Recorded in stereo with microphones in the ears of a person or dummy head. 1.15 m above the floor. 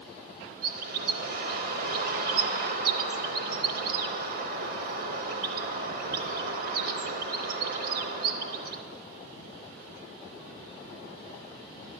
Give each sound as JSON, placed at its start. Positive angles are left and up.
{"t": 0.6, "sound": "a bird", "side_deg": -60, "distance_m": 0.9}